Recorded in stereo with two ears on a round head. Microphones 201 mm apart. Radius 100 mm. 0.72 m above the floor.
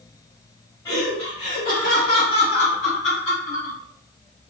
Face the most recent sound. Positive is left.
turn(degrees=60)  # may be behind; listen again after turning